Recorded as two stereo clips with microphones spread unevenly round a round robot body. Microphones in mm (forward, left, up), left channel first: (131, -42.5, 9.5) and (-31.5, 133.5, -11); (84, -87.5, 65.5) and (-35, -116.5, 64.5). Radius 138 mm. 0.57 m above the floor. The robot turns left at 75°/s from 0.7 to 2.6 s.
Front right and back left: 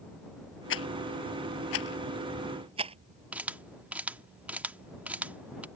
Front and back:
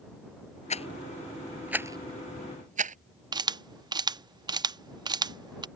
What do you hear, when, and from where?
0.7 s a rattle: 15° right; by 3.0 s 155° right
3.3 s a camera shutter: 155° right